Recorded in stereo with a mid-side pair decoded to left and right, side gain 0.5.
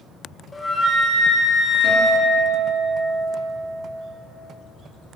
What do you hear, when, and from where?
0.5 s a flute: 25° left, 0.9 m
1.8 s a guitar: 65° right, 3 m